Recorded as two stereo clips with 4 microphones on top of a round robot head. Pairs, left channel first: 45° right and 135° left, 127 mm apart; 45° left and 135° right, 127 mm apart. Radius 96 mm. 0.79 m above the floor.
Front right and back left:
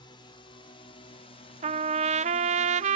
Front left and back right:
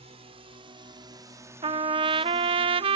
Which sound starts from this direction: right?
A drone, at 0.0 s.